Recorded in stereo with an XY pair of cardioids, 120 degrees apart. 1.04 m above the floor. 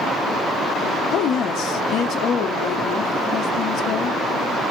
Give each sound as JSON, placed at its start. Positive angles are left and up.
{"t": 1.1, "sound": "a woman speaking", "azimuth_deg": 65, "distance_m": 1.0}